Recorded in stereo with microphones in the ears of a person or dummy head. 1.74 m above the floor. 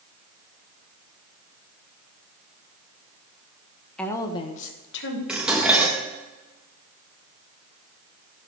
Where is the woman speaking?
5° left (ahead or behind), 1.6 m; by 5.2 s 70° left (ahead or behind), 1.7 m.